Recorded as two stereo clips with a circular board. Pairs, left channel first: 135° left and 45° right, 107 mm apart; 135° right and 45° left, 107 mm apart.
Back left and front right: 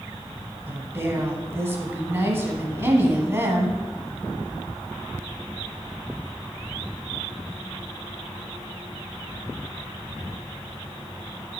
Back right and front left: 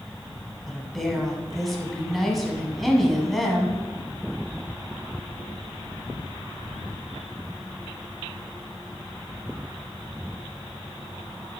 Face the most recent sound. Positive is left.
turn(degrees=-50)